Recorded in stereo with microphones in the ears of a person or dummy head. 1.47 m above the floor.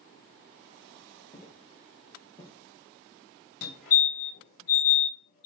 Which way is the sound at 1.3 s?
35° left (ahead or behind).